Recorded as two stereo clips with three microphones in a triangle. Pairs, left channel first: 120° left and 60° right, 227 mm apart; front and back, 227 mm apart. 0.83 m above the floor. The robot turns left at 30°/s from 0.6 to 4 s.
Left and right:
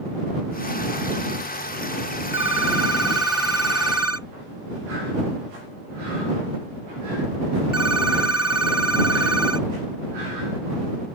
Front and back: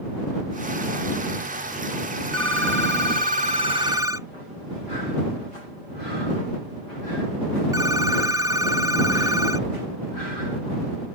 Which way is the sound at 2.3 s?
155° left.